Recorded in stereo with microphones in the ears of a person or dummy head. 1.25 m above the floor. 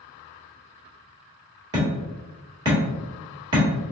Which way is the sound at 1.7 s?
25° right (ahead or behind).